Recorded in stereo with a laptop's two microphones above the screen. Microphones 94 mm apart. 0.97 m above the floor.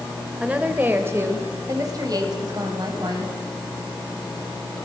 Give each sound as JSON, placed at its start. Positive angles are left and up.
{"t": 0.4, "sound": "a woman speaking", "side_deg": -10, "distance_m": 3.5}